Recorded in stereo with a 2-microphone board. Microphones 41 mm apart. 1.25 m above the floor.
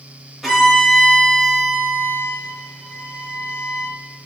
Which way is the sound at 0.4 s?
Centre (ahead or behind).